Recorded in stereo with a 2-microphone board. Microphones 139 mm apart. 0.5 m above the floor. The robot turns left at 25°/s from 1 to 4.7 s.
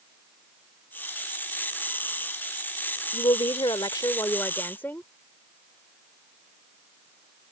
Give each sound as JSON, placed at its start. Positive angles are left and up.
{"t": 3.1, "sound": "a woman speaking", "azimuth_deg": 55}